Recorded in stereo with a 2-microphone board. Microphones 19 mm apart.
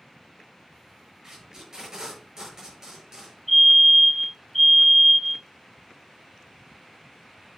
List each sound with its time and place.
1.2 s tape being pulled: 25° right (ahead or behind), 7 m
3.5 s a fire alarm: 15° left (ahead or behind), 4.5 m